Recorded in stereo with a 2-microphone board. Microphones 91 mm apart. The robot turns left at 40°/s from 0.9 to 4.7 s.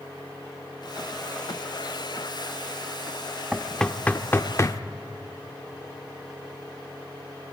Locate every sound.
3.5 s knocking: centre (ahead or behind), 0.6 m; by 4.8 s 35° left (ahead or behind), 0.6 m